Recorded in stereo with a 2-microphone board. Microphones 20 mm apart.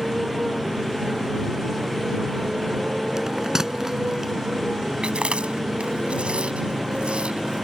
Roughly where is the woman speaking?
I don't hear a woman speaking.